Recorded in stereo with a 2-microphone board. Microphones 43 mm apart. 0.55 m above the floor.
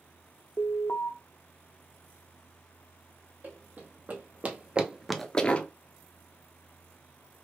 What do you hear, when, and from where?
0.6 s an alarm: 55° left (ahead or behind), 0.5 m
3.4 s running footsteps: 45° right (ahead or behind), 1.5 m; by 5.7 s 35° left (ahead or behind), 0.6 m